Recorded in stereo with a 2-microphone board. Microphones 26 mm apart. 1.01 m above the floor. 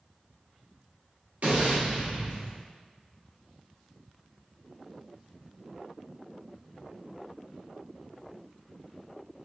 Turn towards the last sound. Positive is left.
turn(degrees=-65)  # may be behind; listen again after turning